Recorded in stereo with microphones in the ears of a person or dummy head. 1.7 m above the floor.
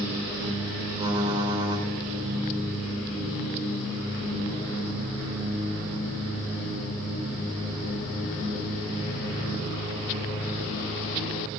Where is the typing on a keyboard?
25° right (ahead or behind), 4 m.